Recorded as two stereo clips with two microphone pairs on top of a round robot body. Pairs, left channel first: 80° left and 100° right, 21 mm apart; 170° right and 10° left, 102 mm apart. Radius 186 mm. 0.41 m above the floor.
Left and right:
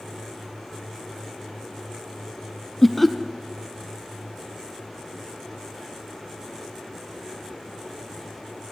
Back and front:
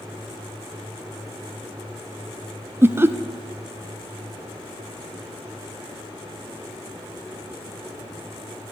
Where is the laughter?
5° right, 0.8 m.